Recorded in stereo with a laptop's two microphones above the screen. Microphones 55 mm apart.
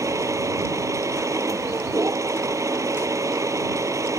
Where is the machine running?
90° right.